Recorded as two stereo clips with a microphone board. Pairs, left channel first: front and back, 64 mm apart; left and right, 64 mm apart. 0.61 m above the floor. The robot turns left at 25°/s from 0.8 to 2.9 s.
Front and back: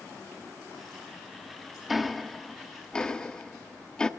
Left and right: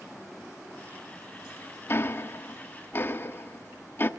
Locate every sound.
1.9 s ticking: 95° left, 1.0 m; by 4.1 s 70° left, 1.0 m